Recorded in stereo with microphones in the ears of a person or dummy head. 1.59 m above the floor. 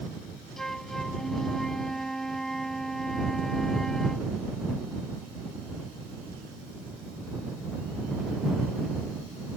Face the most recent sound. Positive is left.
turn(degrees=0)  # may be behind; listen again after turning